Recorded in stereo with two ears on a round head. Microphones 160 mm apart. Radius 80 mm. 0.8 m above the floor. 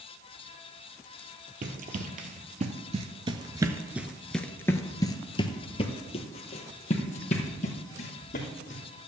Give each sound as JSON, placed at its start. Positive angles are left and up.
{"t": 1.6, "sound": "running footsteps", "side_deg": -50, "distance_m": 1.4}